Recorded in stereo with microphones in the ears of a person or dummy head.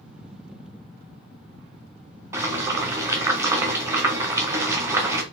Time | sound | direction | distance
2.3 | boiling | 10° right (ahead or behind) | 0.9 m